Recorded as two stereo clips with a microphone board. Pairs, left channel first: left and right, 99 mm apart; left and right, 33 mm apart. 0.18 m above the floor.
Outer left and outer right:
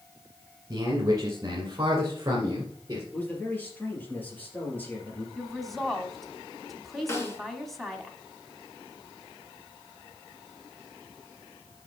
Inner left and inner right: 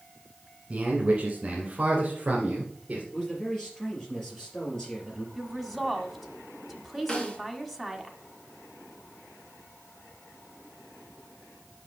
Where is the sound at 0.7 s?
35° right (ahead or behind), 1.6 m; by 3.0 s 30° right (ahead or behind), 2.5 m.